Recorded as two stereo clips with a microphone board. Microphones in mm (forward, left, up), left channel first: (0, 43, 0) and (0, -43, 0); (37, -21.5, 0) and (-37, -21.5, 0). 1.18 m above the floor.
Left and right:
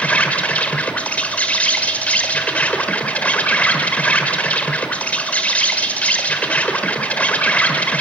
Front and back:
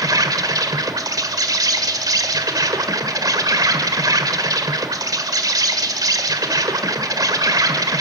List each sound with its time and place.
0.0 s an insect: 160° left, 1.5 m